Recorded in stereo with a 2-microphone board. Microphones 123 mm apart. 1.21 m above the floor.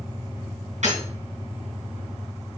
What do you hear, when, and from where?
0.8 s breaking glass: 75° right (ahead or behind), 4 m